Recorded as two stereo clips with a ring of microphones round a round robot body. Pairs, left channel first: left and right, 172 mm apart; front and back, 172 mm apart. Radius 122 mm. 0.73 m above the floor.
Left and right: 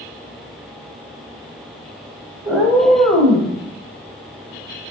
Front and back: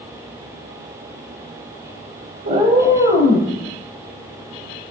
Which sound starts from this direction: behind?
A cat meowing, at 2.5 s.